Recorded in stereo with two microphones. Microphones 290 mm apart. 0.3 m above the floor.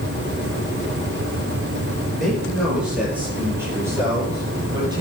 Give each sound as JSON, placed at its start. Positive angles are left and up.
{"t": 2.2, "sound": "a man speaking", "side_deg": 0, "distance_m": 6.5}